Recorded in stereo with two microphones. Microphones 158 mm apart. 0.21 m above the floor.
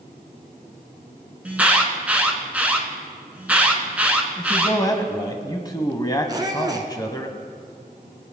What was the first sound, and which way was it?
An alarm, 10° right (ahead or behind).